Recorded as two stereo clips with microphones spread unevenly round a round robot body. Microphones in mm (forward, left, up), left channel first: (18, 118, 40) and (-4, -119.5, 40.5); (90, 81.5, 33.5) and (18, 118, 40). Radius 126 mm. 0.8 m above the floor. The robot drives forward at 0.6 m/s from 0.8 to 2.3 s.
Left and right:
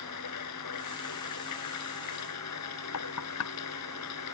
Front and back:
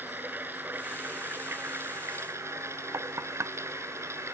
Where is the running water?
90° left; by 4.3 s 100° left.